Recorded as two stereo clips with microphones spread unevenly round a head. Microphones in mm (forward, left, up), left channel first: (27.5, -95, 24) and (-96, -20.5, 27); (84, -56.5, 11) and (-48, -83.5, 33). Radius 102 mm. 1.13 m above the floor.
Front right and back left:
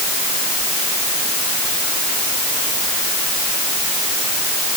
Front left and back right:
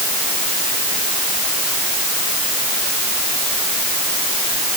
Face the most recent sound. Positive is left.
No sound to turn to.